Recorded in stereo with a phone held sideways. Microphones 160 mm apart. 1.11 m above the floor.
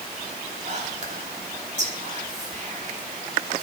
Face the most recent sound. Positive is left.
turn(degrees=-45)  # may be behind; listen again after turning